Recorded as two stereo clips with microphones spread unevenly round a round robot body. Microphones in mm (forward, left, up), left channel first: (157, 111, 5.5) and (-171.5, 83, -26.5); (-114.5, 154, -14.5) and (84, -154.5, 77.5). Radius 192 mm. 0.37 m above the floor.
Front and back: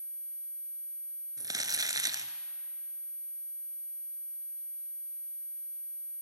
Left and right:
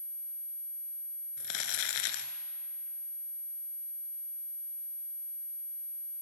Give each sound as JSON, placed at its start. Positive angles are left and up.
{"t": 1.4, "sound": "crumpling", "azimuth_deg": 105, "distance_m": 1.6}